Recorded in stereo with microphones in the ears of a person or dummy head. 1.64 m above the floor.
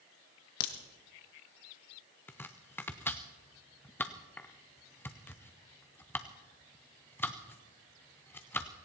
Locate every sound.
0.6 s a crack: 55° left (ahead or behind), 1.3 m
2.3 s chopping: 10° left (ahead or behind), 0.6 m